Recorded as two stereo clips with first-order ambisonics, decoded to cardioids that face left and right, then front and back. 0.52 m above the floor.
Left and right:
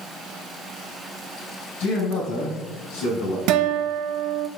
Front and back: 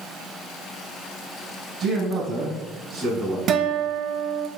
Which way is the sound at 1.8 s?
105° left.